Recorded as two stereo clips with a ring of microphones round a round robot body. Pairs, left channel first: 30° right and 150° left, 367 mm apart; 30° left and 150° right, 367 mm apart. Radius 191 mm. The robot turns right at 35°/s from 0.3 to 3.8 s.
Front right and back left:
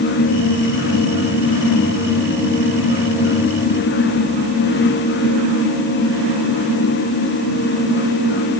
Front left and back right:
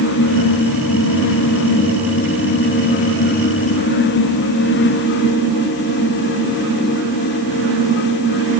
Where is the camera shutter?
I don't hear a camera shutter.